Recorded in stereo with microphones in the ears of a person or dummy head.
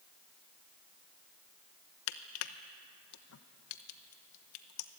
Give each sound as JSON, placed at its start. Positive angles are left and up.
{"t": 2.1, "sound": "crushing", "side_deg": 75, "distance_m": 1.0}